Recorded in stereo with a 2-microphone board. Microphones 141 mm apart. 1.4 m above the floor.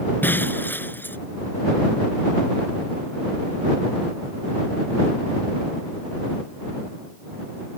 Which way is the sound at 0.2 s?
15° left (ahead or behind).